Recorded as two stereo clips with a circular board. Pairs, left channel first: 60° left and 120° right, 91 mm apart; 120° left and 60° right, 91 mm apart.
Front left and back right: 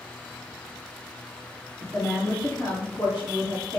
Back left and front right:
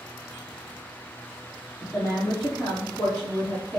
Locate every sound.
1.8 s a woman speaking: 120° left, 1.7 m; by 3.8 s 45° left, 1.6 m